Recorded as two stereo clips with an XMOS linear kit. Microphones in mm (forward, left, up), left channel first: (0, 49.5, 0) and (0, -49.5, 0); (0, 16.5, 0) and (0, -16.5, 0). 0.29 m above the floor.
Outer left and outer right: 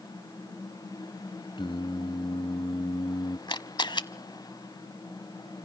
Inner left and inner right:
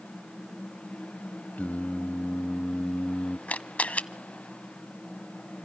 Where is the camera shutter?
55° left (ahead or behind), 0.8 m.